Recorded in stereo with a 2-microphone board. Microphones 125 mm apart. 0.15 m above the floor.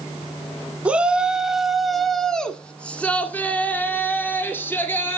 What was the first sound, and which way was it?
A shout, 10° right (ahead or behind).